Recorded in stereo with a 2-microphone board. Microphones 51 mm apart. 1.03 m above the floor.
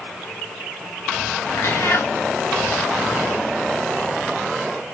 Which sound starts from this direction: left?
A cat meowing, at 1.5 s.